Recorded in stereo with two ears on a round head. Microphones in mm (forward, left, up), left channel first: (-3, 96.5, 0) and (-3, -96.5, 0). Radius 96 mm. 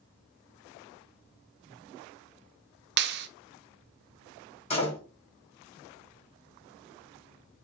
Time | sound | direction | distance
3.0 | a clap | 50° right (ahead or behind) | 0.5 m
4.7 | a door slam | 30° left (ahead or behind) | 1.8 m